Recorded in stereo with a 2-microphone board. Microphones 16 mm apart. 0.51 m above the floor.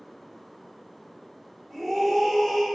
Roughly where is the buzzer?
I don't hear a buzzer.